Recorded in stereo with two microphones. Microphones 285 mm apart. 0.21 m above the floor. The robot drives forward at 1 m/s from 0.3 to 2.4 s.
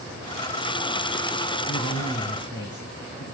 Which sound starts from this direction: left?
A man speaking, at 1.7 s.